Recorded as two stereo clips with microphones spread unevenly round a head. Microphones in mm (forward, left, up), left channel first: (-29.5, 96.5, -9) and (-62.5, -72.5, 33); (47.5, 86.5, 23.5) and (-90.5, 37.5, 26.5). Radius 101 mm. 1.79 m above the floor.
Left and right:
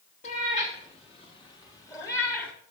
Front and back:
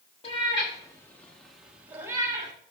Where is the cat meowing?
30° left, 1.5 m; by 2.5 s 175° left, 1.4 m.